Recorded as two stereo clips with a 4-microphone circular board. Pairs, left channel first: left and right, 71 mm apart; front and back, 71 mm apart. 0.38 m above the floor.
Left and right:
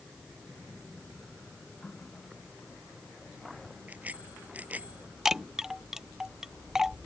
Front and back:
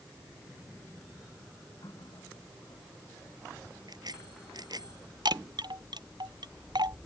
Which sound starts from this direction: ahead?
A running tap, at 1.8 s.